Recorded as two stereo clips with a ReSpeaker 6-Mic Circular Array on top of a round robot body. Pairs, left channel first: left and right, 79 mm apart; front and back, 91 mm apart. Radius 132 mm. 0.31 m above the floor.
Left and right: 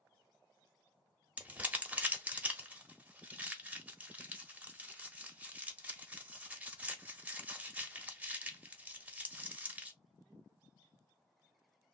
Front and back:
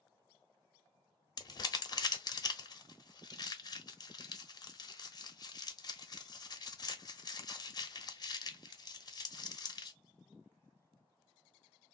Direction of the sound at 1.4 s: 25° right.